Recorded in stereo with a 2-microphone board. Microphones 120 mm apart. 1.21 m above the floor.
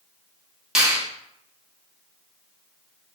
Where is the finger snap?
5° right (ahead or behind), 1.0 m.